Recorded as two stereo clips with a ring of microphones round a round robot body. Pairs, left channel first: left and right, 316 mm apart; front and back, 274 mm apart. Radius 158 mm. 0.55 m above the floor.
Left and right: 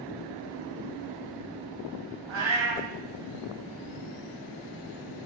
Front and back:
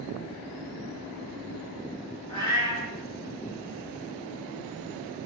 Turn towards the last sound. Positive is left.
turn(degrees=-70)